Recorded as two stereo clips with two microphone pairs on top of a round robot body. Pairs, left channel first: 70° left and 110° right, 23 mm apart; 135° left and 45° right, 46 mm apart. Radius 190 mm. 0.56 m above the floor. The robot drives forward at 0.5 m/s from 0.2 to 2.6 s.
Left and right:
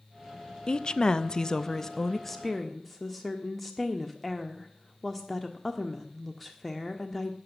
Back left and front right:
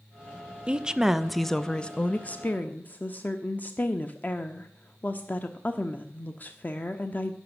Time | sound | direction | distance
0.7 | a woman speaking | 30° left | 0.8 m